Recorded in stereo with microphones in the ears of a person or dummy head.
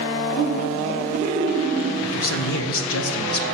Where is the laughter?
15° left (ahead or behind), 5.5 m; by 1.9 s 5° left (ahead or behind), 3.5 m.